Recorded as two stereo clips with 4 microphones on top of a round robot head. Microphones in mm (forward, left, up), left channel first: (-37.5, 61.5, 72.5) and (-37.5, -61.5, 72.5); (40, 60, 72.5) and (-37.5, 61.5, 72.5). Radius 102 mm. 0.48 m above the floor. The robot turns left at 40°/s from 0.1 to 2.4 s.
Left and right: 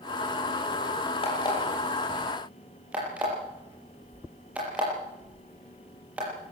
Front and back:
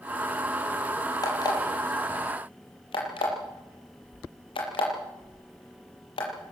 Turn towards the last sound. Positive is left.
turn(degrees=-10)